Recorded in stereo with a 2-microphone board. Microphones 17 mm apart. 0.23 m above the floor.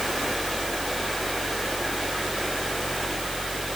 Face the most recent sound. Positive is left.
No sound to turn to.